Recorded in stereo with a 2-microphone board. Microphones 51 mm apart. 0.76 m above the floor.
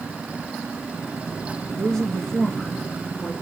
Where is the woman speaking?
10° left (ahead or behind), 1.1 m.